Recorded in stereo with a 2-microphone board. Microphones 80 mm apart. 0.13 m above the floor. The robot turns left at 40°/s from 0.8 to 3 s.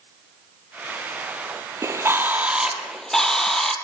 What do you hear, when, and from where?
1.8 s a bird: 140° right, 2 m; by 3.8 s 175° left, 2 m